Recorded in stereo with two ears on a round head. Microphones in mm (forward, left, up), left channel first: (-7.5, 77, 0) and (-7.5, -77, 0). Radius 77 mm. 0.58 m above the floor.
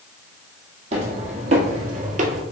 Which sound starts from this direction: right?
Footsteps, at 0.9 s.